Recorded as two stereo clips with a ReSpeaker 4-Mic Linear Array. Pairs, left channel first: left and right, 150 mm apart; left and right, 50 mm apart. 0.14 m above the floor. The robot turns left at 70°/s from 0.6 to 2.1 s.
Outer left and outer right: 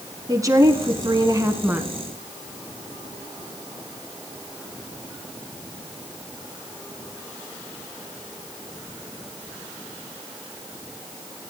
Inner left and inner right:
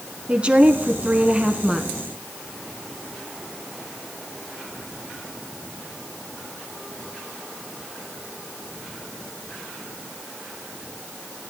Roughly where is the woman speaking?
Right.